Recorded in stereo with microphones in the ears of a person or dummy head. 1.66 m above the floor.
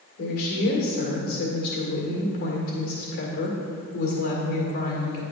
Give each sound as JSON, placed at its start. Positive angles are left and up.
{"t": 0.2, "sound": "a woman speaking", "side_deg": 60, "distance_m": 1.7}